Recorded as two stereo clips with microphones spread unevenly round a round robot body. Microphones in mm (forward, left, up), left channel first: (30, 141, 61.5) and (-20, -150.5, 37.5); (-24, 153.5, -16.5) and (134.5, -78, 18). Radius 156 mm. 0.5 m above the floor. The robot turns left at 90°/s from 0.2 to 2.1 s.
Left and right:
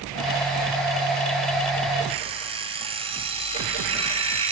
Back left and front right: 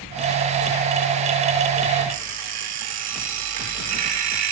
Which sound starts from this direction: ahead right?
An alarm clock, at 2.1 s.